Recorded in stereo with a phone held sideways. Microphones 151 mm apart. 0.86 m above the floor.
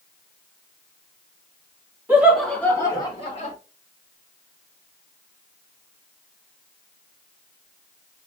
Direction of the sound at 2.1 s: 15° right (ahead or behind).